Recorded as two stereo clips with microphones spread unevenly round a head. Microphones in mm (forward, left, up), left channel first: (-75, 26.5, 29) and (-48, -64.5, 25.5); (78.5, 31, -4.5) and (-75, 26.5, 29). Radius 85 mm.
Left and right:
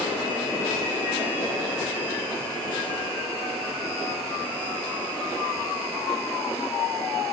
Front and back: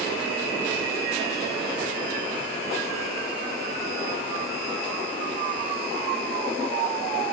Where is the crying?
I don't hear crying.